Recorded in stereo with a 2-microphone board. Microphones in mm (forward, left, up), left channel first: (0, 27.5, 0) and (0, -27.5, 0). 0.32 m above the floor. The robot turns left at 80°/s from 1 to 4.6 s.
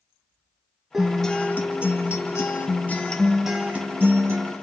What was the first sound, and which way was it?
A guitar, 170° right.